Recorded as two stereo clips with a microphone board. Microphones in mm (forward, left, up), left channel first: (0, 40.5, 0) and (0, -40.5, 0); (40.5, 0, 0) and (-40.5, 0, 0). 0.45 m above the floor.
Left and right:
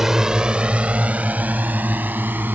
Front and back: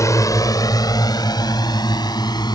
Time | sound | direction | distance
0.0 | a drone | 10° right | ?